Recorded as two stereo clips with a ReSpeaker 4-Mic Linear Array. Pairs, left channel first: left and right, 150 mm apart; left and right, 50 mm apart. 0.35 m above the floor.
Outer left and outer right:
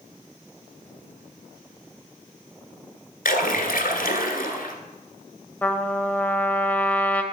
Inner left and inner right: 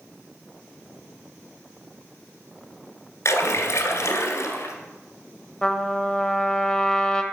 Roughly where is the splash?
Left.